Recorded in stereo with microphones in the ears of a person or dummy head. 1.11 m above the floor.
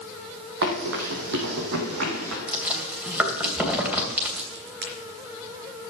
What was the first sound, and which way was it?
Running footsteps, 65° right (ahead or behind).